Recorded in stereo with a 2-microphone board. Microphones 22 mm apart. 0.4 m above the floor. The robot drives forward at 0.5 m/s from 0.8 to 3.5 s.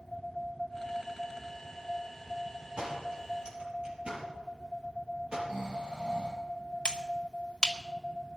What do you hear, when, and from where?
2.8 s a door slam: 60° right (ahead or behind), 6.5 m; by 5.4 s 55° right (ahead or behind), 6.5 m
5.5 s snoring: 75° right (ahead or behind), 10 m
6.8 s a finger snap: 50° left (ahead or behind), 1.3 m